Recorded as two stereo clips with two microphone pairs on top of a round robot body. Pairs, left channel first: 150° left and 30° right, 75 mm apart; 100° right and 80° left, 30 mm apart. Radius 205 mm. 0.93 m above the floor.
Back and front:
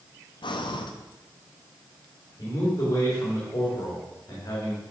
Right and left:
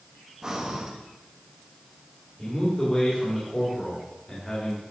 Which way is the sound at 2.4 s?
170° right.